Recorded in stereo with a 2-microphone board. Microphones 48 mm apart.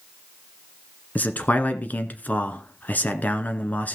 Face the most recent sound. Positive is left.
turn(degrees=35)  # may be behind; listen again after turning